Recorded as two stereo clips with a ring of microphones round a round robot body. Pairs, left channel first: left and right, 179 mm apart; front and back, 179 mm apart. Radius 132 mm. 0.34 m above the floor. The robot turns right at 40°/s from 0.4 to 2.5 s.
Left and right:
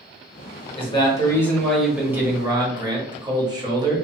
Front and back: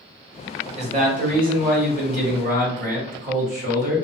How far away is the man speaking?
About 1.3 m.